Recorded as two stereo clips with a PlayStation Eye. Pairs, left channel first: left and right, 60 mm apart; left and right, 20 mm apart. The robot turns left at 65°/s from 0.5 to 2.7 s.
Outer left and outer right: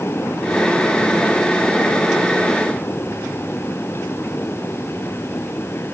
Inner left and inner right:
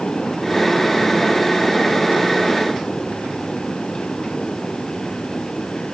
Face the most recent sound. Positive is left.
No sound to turn to.